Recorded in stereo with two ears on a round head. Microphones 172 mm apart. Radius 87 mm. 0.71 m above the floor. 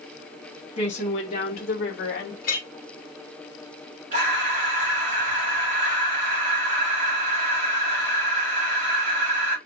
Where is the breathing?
35° right (ahead or behind), 2 m.